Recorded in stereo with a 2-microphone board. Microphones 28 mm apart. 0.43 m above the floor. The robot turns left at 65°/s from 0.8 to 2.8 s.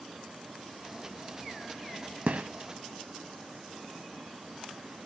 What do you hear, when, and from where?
2.3 s a gunshot: 75° right (ahead or behind), 0.6 m; by 2.5 s 80° right, 0.6 m